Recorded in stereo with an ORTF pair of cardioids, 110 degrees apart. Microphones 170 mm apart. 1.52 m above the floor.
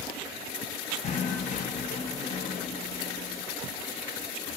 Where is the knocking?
45° left, 1.1 m.